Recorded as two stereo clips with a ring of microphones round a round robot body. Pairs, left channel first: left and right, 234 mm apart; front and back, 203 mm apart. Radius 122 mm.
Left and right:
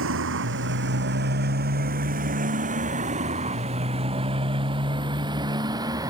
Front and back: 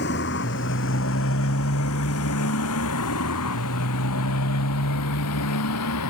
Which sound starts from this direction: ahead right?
A motorcycle, at 0.0 s.